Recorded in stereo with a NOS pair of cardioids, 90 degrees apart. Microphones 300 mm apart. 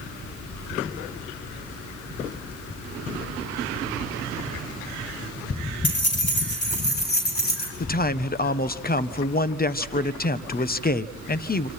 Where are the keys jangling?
40° left, 8 m; by 7.7 s 30° left, 9 m.